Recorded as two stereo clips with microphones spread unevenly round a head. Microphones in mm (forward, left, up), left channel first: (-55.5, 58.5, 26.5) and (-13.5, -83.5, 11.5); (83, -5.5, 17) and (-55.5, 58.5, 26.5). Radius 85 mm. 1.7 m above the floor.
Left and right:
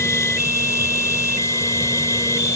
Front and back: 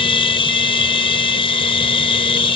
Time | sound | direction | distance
0.0 | a machine running | 30° left | ?